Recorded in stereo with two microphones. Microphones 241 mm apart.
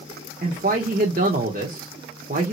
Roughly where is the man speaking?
Right.